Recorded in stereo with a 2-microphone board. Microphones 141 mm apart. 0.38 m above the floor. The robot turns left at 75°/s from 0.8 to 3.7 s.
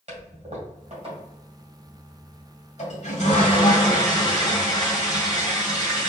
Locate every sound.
0.1 s a toilet flushing: 105° right, 2.5 m; by 6.1 s 40° left, 2.5 m